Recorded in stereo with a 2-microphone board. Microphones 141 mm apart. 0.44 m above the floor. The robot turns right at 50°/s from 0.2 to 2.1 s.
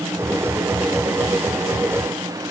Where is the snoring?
No snoring in this recording.